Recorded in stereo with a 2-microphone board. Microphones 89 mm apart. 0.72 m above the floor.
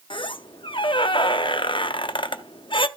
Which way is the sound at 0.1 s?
65° left (ahead or behind).